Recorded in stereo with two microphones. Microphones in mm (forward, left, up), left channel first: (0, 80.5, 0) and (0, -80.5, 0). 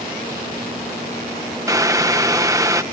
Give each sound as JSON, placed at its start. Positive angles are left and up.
{"t": 1.7, "sound": "boiling", "side_deg": -20}